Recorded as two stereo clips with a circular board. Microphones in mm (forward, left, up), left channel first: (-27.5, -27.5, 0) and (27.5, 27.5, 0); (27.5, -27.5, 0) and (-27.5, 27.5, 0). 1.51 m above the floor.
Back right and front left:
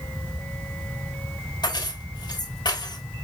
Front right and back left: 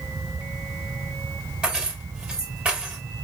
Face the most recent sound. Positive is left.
turn(degrees=-150)